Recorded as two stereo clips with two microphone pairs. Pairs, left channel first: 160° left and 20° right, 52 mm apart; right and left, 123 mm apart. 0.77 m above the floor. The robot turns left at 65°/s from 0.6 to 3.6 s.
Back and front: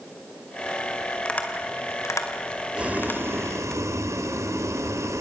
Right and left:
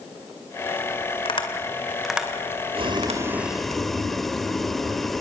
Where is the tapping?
125° right, 2.5 m; by 3.8 s 80° left, 2.5 m.